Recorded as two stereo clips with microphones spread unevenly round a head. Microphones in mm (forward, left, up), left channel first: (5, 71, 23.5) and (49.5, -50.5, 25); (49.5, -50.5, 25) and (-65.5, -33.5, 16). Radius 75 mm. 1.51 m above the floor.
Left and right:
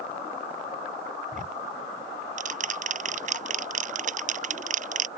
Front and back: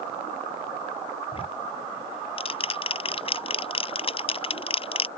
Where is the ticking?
45° right.